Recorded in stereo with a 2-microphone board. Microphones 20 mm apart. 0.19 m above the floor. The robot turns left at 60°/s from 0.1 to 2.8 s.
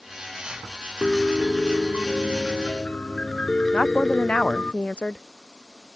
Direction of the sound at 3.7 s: 65° left (ahead or behind).